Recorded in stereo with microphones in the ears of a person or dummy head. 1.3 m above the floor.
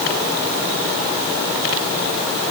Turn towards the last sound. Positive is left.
No sound to turn to.